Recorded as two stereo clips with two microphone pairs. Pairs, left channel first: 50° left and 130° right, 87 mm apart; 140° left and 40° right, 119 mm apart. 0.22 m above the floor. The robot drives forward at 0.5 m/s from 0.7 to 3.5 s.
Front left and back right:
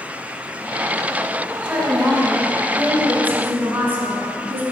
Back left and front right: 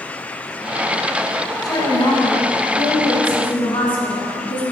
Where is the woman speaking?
160° left, 1.5 m; by 4.6 s 170° left, 2 m.